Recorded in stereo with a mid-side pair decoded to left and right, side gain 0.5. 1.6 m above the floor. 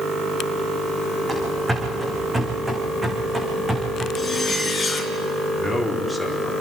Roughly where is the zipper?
Ahead.